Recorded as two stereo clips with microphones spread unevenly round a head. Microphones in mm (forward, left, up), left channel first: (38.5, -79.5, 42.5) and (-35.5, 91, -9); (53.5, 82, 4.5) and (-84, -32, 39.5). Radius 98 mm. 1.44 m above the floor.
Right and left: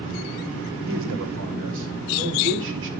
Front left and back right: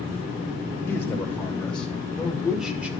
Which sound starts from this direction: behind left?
A man speaking, at 0.9 s.